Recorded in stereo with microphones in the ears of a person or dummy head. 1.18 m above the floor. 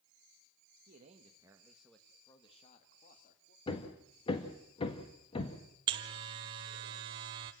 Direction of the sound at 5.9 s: 20° right (ahead or behind).